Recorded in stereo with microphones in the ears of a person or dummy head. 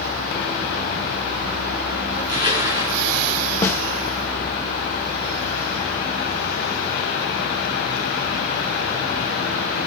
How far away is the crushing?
About 2.5 m.